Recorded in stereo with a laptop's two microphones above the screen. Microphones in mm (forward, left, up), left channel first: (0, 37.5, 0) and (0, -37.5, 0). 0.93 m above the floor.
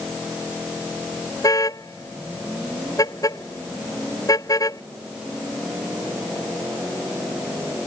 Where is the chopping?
No chopping in this recording.